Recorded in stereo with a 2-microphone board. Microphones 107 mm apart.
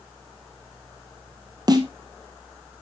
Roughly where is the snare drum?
Right.